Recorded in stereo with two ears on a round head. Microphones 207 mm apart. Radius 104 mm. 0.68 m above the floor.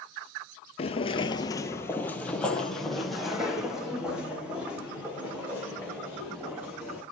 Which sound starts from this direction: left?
Footsteps, at 0.8 s.